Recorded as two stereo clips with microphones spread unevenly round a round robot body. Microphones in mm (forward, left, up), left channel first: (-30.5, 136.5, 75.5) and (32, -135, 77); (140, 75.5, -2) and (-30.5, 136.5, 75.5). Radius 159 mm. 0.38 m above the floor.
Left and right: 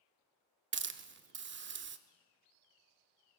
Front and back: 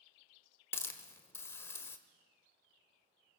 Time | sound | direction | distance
0.7 | a hiss | 55° right | 1.1 m